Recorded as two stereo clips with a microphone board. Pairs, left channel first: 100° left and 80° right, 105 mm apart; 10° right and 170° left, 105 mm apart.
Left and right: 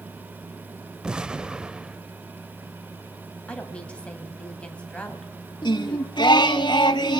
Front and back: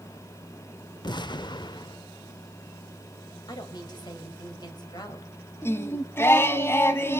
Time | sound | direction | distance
1.0 | an explosion | straight ahead | 0.5 m
3.5 | a woman speaking | 25° left | 2.5 m
5.6 | singing | 55° left | 1.0 m